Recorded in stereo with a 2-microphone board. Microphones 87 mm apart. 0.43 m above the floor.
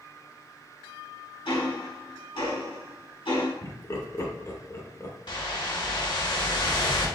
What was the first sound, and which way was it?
Ticking, 75° left (ahead or behind).